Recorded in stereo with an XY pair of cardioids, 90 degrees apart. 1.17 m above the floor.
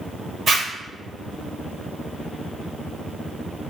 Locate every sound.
0.5 s a zipper: 50° right, 1.3 m